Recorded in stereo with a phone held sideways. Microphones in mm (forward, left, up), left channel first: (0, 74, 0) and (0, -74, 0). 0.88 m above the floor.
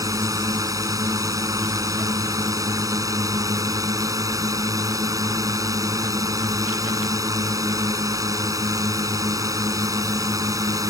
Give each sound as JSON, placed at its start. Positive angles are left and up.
{"t": 0.0, "sound": "a drone", "side_deg": -25}